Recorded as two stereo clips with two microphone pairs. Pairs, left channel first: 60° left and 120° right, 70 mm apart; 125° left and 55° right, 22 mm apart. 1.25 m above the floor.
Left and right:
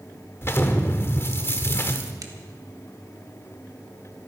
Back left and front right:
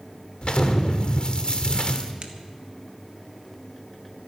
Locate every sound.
0.4 s an explosion: 105° left, 1.3 m
2.2 s a crack: 100° right, 1.6 m